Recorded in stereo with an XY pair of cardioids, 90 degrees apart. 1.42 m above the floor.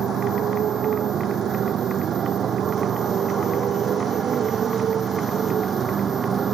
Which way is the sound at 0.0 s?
70° right.